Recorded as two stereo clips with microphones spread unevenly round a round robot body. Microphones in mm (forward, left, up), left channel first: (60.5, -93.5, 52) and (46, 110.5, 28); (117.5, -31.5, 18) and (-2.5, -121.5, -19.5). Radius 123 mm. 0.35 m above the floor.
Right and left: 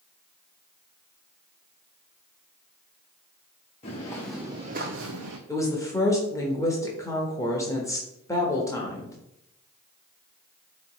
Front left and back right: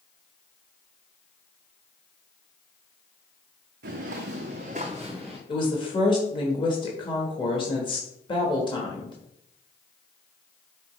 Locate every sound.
3.8 s footsteps: 150° right, 1.2 m; by 5.4 s 115° left, 1.2 m
5.5 s a woman speaking: 15° right, 1.4 m